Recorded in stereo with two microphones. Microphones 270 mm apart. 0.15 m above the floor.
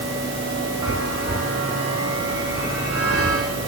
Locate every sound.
0.8 s a chime: 60° left (ahead or behind), 6 m